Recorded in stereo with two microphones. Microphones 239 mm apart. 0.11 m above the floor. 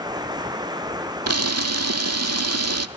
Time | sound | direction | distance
0.0 | running water | 15° right (ahead or behind) | 1.6 m
1.3 | a camera shutter | 80° right | 0.8 m